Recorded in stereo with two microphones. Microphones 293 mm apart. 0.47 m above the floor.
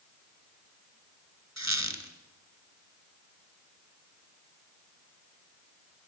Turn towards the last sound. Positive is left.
turn(degrees=-75)  # may be behind; listen again after turning